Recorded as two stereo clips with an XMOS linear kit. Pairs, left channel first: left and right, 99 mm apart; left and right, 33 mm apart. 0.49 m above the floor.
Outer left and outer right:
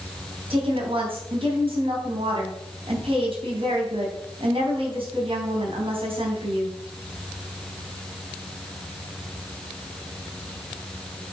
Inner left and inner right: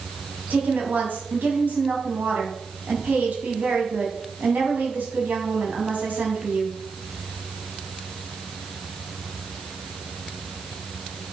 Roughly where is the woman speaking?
Right.